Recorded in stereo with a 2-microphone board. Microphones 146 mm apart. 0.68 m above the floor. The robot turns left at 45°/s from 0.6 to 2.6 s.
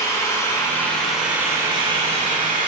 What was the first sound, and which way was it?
An engine running, 20° left.